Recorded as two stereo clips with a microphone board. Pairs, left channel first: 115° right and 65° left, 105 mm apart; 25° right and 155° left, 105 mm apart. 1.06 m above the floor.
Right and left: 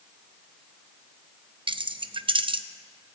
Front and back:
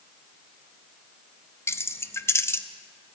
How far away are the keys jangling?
About 0.5 m.